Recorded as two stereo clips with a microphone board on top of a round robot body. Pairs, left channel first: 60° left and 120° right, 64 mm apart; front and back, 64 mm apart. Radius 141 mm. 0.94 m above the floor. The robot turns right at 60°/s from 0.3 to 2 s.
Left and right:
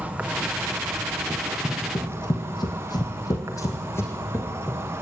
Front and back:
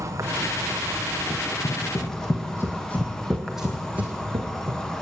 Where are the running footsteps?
25° right, 3 m; by 5.0 s 125° left, 3.5 m.